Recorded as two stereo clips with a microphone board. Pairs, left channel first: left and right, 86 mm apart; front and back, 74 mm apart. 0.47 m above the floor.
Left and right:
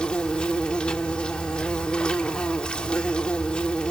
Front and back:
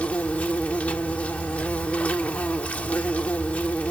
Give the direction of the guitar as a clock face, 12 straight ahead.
I don't hear a guitar.